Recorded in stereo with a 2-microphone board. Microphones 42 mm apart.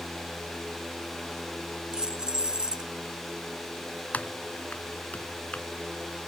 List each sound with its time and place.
1.9 s keys jangling: 20° right (ahead or behind)
4.1 s typing on a keyboard: 40° left (ahead or behind)